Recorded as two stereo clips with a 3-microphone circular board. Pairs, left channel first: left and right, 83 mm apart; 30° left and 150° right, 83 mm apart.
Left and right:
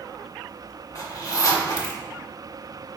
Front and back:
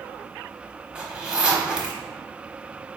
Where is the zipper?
130° left, 1.0 m.